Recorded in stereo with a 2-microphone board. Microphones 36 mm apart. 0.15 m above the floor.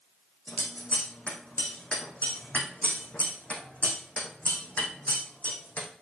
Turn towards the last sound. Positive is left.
turn(degrees=40)  # may be behind; listen again after turning